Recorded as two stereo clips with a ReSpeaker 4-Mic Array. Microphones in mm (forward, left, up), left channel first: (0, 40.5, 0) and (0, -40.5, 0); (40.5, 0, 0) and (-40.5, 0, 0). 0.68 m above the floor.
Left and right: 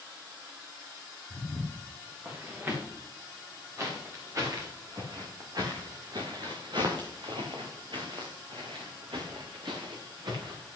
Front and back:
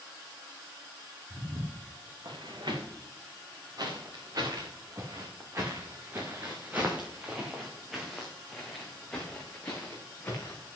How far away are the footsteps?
About 6.5 m.